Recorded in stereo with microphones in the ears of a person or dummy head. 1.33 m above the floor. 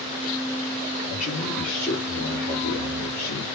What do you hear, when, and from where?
1.1 s a man speaking: 20° left (ahead or behind), 4 m; by 3.4 s 50° left (ahead or behind), 3 m